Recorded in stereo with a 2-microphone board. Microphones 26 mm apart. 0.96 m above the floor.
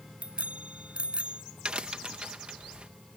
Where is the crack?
45° right (ahead or behind).